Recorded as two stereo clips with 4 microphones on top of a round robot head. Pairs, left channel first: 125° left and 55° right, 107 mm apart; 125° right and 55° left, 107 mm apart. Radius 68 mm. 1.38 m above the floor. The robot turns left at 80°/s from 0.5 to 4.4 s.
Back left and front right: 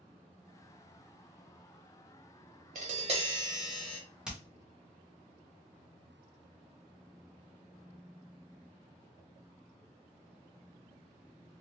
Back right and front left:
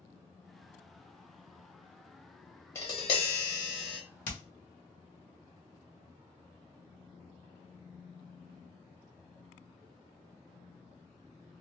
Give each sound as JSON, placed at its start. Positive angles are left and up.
{"t": 2.8, "sound": "tapping", "azimuth_deg": -60, "distance_m": 0.9}
{"t": 4.2, "sound": "hammering", "azimuth_deg": -135, "distance_m": 0.8}